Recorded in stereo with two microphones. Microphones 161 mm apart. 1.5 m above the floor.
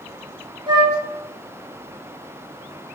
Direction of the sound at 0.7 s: 30° right (ahead or behind).